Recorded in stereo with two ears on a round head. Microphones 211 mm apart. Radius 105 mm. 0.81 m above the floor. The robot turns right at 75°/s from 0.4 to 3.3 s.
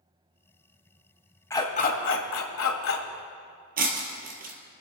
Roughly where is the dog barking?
Ahead.